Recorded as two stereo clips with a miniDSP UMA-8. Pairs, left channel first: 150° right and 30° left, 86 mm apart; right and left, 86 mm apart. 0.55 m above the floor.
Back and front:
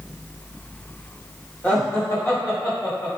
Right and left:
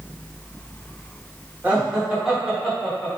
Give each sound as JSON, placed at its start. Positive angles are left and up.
{"t": 1.6, "sound": "laughter", "azimuth_deg": 155, "distance_m": 1.1}